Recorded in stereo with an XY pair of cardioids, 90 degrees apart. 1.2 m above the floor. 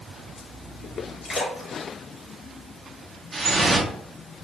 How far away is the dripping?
About 0.6 m.